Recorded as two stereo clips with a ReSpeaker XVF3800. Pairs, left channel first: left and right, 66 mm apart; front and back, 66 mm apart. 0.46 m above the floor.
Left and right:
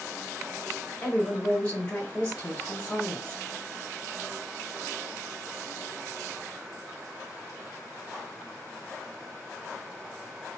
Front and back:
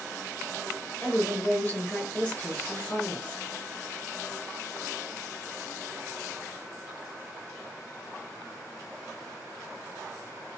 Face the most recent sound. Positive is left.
turn(degrees=40)